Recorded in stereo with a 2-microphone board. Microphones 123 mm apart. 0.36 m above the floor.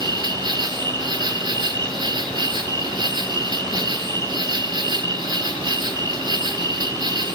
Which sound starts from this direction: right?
An insect, at 0.0 s.